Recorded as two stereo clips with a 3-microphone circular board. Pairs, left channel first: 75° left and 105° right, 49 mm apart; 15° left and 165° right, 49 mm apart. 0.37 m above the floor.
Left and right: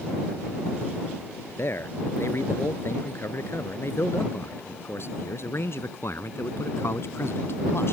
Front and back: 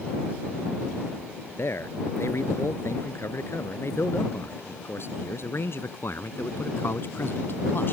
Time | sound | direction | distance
1.6 | a man speaking | 40° left | ?